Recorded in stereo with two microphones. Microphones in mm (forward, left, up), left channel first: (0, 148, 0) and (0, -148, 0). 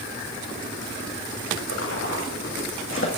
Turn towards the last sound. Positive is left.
turn(degrees=40)  # may be behind; listen again after turning